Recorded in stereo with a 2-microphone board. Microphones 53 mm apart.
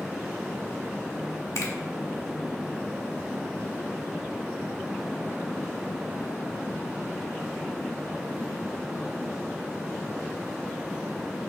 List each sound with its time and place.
1.6 s a finger snap: 75° left (ahead or behind), 1.3 m